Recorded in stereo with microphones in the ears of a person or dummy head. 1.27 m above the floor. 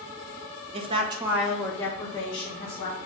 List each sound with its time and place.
0.7 s a woman speaking: 35° right (ahead or behind), 0.6 m; by 3.0 s 30° left (ahead or behind), 1.3 m